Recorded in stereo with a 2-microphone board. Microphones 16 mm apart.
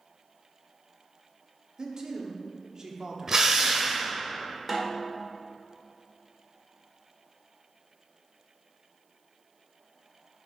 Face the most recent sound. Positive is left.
turn(degrees=-5)  # may be behind; listen again after turning